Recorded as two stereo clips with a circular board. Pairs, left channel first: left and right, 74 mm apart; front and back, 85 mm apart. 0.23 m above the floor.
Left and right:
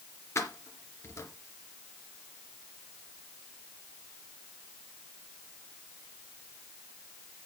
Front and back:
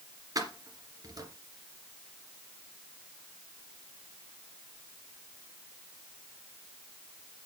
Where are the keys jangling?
140° left, 2.5 m.